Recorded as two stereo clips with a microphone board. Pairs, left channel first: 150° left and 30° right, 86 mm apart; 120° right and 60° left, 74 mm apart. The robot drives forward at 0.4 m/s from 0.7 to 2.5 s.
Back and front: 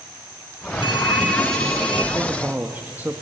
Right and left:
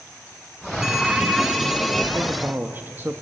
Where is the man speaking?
20° left, 1.3 m; by 3.2 s 25° left, 1.2 m.